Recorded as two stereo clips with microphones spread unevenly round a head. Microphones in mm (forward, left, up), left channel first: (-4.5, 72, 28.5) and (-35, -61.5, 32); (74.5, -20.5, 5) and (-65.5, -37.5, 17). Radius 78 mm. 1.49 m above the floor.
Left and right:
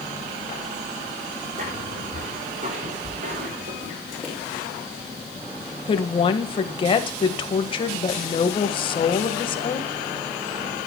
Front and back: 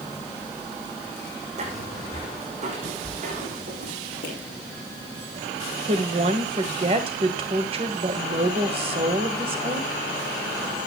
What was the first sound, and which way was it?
Footsteps, 135° right.